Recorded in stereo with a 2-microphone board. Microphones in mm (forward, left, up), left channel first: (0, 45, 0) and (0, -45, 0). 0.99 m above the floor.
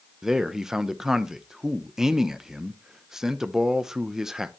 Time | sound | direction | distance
0.2 | a man speaking | 5° right (ahead or behind) | 0.6 m